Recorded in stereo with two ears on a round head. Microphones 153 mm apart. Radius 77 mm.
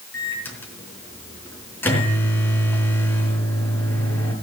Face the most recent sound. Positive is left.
turn(degrees=10)  # may be behind; listen again after turning